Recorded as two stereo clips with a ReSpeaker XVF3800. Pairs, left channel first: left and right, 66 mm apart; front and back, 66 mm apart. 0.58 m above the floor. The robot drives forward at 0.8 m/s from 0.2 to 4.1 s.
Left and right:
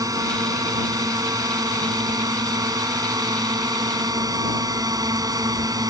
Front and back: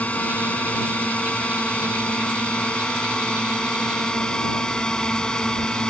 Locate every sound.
0.0 s a drone: 65° right; by 5.9 s 75° right